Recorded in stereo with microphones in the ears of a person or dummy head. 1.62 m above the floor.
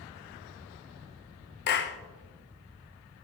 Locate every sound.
1.7 s a clap: 50° left (ahead or behind), 0.9 m